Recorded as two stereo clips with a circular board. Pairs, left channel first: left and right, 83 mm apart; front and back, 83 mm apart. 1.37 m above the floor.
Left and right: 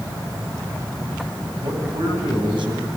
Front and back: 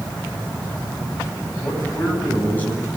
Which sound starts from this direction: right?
A man speaking, at 1.6 s.